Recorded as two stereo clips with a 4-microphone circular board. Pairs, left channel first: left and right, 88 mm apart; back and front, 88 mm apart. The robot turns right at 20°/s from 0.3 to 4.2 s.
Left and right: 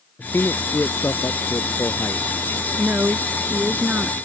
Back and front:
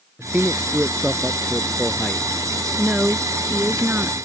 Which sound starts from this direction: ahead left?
A man speaking, at 0.2 s.